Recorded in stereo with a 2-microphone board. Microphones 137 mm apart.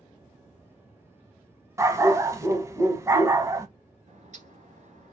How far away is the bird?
About 1.0 m.